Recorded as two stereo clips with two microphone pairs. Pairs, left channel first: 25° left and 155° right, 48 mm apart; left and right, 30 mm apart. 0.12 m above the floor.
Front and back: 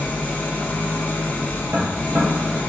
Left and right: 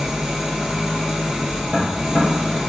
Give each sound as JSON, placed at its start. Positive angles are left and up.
{"t": 0.0, "sound": "an engine running", "azimuth_deg": -15, "distance_m": 0.8}
{"t": 1.7, "sound": "tapping", "azimuth_deg": -170, "distance_m": 1.5}